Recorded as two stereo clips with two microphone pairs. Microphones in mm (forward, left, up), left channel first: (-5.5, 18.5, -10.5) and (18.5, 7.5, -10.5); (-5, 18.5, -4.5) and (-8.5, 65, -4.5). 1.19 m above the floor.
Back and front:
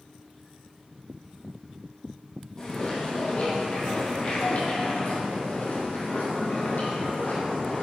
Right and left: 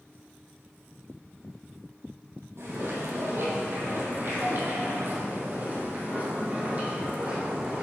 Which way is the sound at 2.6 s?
95° left.